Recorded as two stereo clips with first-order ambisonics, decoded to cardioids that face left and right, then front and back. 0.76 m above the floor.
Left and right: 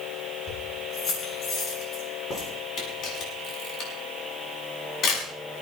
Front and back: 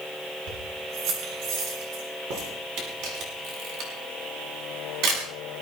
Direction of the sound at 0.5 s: 155° left.